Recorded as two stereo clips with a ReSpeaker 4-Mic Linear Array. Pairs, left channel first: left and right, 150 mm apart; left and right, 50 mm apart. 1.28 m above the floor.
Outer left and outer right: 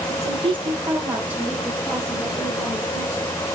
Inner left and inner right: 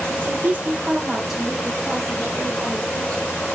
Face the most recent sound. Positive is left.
turn(degrees=20)  # may be behind; listen again after turning